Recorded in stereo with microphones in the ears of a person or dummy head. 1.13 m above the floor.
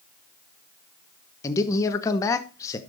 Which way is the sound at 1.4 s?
20° left (ahead or behind).